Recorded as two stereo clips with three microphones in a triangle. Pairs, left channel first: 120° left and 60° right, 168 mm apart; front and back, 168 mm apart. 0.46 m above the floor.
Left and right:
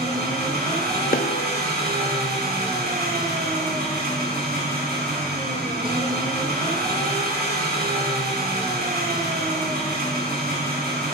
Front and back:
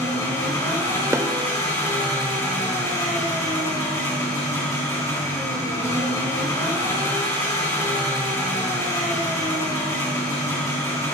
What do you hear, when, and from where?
0.0 s an engine running: 70° right, 4 m
1.1 s a snare drum: 110° left, 0.6 m